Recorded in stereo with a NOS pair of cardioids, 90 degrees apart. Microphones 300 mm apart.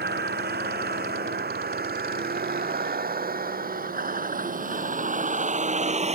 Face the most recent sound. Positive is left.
turn(degrees=-20)